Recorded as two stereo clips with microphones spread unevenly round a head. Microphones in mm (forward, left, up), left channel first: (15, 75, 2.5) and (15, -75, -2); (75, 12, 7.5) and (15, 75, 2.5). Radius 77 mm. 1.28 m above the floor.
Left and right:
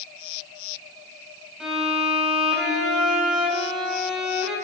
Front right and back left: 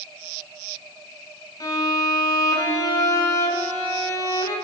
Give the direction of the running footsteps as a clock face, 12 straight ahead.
No running footsteps in this recording.